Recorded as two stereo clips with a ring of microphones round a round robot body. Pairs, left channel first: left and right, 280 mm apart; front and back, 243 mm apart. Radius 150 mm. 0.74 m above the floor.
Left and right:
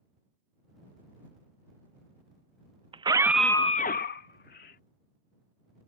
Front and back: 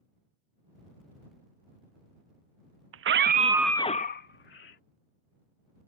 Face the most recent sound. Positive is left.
turn(degrees=35)